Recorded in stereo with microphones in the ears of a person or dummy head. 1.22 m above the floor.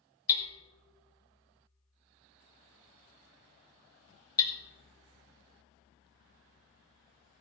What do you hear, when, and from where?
0.3 s hammering: 15° left (ahead or behind), 1.4 m